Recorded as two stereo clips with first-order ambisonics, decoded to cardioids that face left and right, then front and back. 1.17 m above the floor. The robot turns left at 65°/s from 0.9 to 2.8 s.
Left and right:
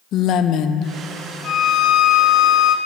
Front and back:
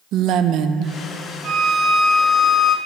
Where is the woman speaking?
135° left, 0.6 m; by 1.0 s 130° left, 0.6 m.